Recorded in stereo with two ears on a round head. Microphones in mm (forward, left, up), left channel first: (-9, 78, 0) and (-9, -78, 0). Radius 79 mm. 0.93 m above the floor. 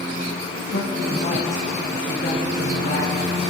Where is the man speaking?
45° left (ahead or behind), 8.5 m.